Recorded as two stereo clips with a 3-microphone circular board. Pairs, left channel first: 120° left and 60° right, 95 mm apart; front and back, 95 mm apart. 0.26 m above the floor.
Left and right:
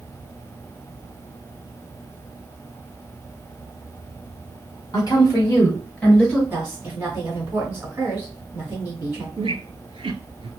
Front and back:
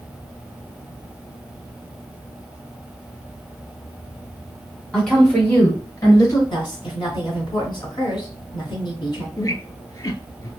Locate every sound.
4.9 s a woman speaking: 90° left, 1.9 m; by 6.4 s 30° left, 1.5 m
6.5 s a woman speaking: 5° left, 2 m
9.4 s a squeak: 50° right, 0.6 m